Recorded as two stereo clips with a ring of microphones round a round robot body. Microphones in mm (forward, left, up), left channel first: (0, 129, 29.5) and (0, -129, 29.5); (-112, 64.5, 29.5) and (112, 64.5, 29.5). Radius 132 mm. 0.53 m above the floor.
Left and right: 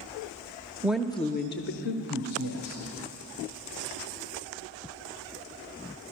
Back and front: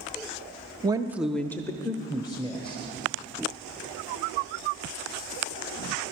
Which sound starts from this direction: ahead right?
A woman speaking, at 0.8 s.